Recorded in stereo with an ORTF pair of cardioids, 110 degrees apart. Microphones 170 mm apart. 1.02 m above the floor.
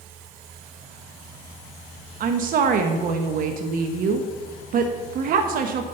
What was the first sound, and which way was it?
A woman speaking, 55° right.